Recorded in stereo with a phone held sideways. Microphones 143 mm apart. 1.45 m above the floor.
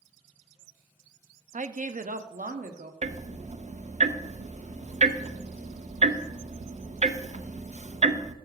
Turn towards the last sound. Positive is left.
turn(degrees=-55)  # may be behind; listen again after turning